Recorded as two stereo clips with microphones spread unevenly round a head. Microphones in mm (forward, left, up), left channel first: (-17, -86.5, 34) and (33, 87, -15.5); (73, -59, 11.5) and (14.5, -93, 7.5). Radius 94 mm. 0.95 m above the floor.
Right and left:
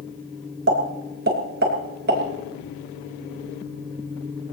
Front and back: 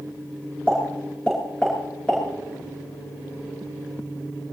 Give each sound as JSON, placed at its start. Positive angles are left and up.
{"t": 0.7, "sound": "a pop", "azimuth_deg": 115, "distance_m": 4.0}